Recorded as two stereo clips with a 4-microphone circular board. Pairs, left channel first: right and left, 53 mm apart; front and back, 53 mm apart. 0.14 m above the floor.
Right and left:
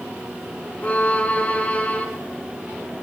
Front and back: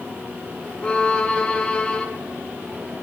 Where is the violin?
50° right, 1.7 m.